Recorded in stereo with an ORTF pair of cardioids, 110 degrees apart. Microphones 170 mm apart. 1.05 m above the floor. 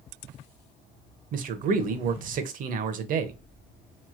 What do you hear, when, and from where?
1.3 s a man speaking: 55° right, 0.6 m